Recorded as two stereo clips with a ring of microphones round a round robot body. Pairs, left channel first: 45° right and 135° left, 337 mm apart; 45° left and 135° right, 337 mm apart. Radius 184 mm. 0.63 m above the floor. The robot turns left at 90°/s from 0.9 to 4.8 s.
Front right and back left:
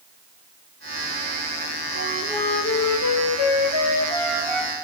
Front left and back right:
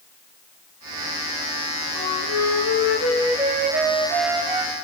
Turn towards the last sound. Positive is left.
turn(degrees=180)